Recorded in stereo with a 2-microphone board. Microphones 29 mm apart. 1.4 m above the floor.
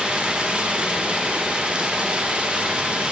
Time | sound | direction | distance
0.0 | running water | 40° right (ahead or behind) | 1.0 m